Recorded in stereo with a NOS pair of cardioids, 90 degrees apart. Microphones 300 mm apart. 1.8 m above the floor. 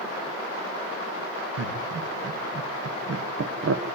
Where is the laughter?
55° right, 3 m; by 3.8 s 50° right, 1.5 m.